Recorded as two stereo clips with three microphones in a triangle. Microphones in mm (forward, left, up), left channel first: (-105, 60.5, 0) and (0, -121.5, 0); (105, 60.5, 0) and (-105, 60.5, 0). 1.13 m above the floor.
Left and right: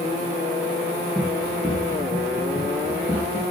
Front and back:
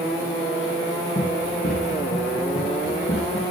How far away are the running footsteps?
About 5.5 m.